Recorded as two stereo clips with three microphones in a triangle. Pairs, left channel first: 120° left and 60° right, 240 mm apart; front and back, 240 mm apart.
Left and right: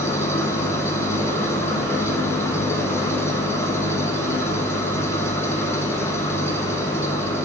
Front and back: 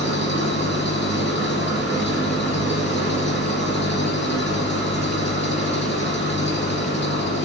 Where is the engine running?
40° left, 4.5 m.